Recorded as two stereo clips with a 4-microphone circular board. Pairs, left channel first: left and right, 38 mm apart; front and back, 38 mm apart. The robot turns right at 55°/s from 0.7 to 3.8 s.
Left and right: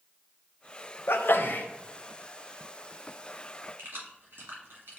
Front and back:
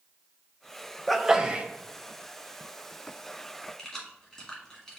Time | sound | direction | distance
1.1 | a sneeze | 90° left | 0.7 m
3.8 | keys jangling | 70° right | 1.9 m